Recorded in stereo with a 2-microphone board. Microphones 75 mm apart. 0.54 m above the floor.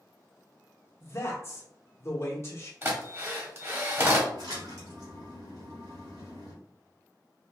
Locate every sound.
1.0 s a man speaking: 35° left (ahead or behind), 1.1 m
2.8 s a drill: 35° right (ahead or behind), 1.0 m
4.3 s a splash: 65° right (ahead or behind), 1.5 m